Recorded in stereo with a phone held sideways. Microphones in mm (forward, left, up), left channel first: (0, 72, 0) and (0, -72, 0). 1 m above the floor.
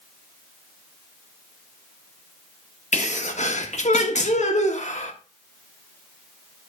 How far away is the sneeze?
About 1.4 m.